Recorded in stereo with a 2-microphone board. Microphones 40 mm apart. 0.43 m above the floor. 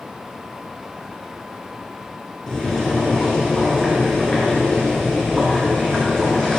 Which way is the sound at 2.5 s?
15° left (ahead or behind).